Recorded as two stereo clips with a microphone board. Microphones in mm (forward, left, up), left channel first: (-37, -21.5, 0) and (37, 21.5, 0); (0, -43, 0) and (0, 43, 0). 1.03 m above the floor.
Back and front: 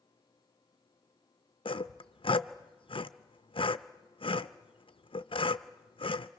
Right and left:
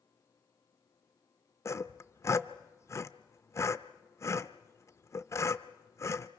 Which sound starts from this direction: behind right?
Sawing, at 1.6 s.